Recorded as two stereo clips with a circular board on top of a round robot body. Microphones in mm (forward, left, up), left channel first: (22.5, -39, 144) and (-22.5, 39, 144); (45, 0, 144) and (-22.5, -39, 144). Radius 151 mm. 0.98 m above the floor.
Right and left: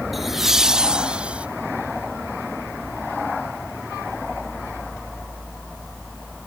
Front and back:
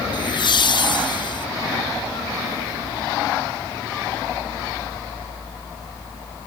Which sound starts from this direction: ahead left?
Laughter, at 0.1 s.